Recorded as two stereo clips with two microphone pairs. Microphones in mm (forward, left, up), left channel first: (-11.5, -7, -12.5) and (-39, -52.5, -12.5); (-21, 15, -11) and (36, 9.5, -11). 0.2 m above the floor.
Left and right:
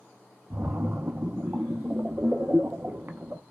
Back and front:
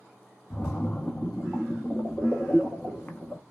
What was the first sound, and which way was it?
A splash, 135° right.